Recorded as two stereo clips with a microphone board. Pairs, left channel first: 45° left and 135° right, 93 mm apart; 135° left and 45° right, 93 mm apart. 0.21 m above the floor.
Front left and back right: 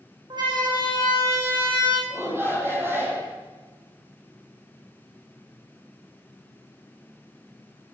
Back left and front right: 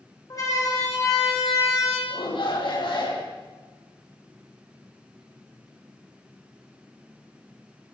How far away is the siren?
About 9 m.